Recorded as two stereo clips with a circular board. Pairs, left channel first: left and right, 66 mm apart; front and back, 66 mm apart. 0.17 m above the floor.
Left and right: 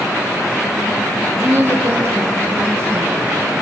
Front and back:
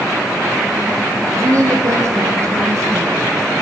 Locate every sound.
1.3 s a woman speaking: 145° right, 6.5 m; by 3.4 s 135° right, 8.5 m